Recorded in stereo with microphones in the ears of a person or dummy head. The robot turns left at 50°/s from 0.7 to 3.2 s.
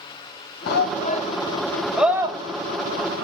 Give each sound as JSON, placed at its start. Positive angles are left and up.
{"t": 0.7, "sound": "a shout", "side_deg": 60, "distance_m": 1.1}